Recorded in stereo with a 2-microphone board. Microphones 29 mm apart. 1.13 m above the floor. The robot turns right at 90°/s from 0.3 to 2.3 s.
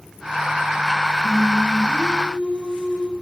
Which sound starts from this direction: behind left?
Singing, at 1.2 s.